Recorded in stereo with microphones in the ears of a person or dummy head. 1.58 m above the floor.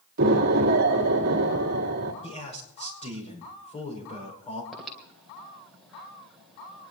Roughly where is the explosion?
Right.